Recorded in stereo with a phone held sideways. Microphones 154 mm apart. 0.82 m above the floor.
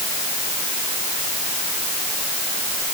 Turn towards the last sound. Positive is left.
No sound to turn to.